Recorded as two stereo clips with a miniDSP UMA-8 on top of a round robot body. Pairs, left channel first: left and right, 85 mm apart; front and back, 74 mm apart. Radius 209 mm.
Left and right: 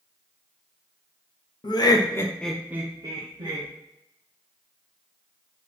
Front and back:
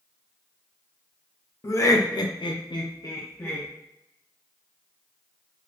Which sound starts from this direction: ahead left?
Laughter, at 1.6 s.